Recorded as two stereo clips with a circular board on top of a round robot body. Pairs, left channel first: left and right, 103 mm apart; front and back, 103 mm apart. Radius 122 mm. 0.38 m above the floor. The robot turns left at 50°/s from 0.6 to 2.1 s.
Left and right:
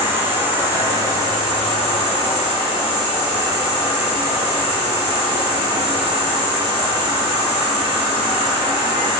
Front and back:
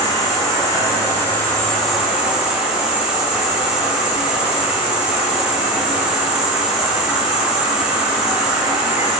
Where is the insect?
30° right, 1.2 m; by 9.2 s 105° right, 1.2 m.